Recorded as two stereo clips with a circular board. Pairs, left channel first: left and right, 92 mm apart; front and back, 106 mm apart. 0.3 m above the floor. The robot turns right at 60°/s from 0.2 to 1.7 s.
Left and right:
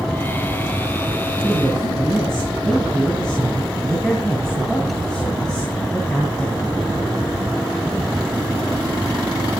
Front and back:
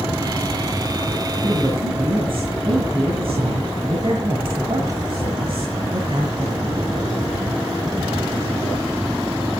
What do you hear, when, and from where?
1.4 s a man speaking: 155° left, 3 m; by 6.9 s 170° left, 3 m